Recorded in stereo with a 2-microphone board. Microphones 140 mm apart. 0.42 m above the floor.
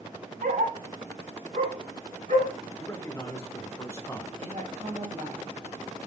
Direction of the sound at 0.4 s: 85° right.